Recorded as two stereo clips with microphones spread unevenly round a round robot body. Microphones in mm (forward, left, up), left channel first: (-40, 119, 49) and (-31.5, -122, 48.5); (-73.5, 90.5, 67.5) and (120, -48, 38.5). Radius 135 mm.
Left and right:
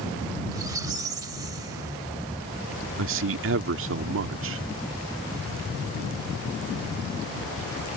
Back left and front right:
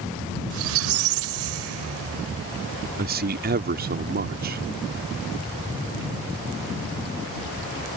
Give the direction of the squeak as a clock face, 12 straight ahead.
12 o'clock.